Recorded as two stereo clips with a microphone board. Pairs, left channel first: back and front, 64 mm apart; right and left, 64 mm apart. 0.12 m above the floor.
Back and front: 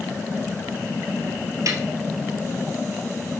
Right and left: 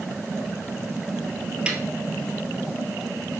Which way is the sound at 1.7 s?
20° left.